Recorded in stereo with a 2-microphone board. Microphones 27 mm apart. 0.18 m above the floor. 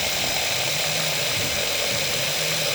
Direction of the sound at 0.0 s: 10° right (ahead or behind).